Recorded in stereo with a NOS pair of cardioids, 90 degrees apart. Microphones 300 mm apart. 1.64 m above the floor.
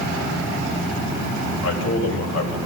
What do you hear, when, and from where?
1.6 s a man speaking: 60° left, 9 m